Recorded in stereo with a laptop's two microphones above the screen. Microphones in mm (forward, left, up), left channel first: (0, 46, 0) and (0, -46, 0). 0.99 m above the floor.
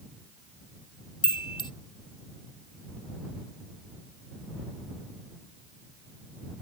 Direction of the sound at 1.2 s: 60° left (ahead or behind).